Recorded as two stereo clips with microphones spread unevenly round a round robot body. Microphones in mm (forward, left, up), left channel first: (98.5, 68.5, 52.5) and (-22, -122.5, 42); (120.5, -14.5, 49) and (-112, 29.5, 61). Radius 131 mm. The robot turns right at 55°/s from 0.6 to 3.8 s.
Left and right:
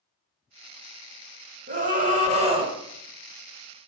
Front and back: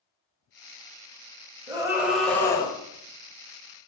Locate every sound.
1.7 s a scream: 125° right, 1.8 m; by 2.7 s 65° right, 1.8 m